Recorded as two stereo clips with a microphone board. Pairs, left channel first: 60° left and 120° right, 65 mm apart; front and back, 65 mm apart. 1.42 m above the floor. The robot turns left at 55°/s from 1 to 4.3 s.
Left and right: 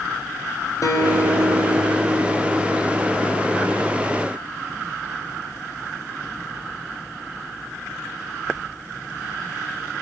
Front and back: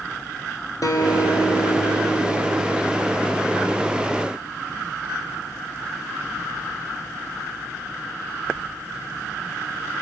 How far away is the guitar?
About 4.5 m.